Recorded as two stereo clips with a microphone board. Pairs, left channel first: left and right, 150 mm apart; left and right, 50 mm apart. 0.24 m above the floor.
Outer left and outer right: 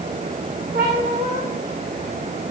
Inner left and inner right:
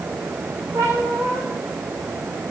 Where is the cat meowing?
80° right, 5.5 m.